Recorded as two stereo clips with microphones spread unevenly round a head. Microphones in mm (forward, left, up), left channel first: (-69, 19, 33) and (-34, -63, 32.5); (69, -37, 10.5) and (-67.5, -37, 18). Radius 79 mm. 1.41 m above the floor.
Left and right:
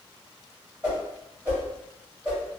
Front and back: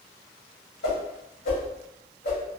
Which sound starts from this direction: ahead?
A whoosh, at 0.8 s.